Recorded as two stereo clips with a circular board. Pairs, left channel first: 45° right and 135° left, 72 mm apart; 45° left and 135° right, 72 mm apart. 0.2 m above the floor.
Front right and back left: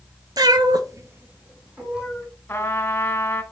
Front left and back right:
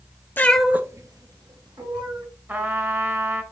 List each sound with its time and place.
0.4 s a cat meowing: 105° left, 0.8 m; by 2.2 s 145° right, 2.5 m
2.5 s a trumpet: 90° right, 1.2 m